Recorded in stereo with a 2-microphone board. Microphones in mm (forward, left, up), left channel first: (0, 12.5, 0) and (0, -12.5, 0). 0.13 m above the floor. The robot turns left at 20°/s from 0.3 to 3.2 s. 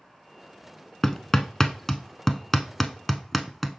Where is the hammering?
20° left (ahead or behind), 0.6 m; by 3.8 s 5° left (ahead or behind), 0.6 m.